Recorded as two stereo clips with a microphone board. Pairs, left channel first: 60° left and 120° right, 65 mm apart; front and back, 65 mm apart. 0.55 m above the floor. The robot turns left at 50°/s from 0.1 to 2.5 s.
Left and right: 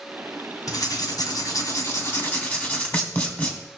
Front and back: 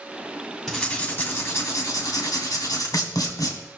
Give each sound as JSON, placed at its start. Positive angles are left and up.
{"t": 0.7, "sound": "writing", "azimuth_deg": 90, "distance_m": 2.5}